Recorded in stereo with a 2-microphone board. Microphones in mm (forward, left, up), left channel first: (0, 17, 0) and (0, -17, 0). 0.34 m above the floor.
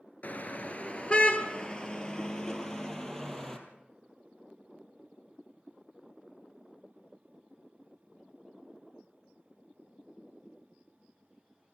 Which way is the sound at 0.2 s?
45° left (ahead or behind).